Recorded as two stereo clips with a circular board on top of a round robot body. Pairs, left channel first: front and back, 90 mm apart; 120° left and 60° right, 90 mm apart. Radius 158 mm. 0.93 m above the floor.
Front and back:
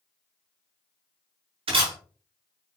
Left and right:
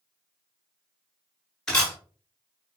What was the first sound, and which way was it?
A camera shutter, 155° right.